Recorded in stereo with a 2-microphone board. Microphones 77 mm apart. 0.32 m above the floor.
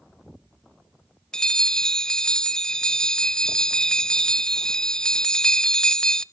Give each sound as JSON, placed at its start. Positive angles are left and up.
{"t": 1.3, "sound": "a bell", "side_deg": 10, "distance_m": 0.5}